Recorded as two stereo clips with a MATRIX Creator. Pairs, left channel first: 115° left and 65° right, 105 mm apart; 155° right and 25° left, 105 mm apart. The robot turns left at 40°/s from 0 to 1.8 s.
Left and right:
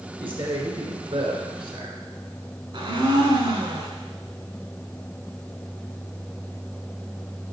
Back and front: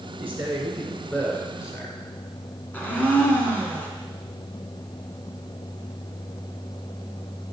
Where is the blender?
90° right, 1.3 m.